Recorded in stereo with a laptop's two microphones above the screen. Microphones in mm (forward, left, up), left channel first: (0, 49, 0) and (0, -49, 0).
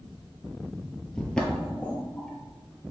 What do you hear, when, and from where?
1.1 s footsteps: 10° left (ahead or behind), 0.9 m